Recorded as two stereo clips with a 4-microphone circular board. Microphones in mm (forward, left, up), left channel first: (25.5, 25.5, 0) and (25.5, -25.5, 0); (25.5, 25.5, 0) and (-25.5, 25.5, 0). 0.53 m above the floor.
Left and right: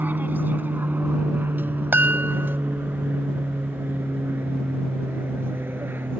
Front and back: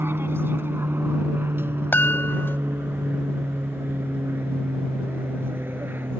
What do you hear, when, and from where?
0.0 s an aircraft: 140° right; by 6.2 s 135° right
1.9 s a chime: 45° right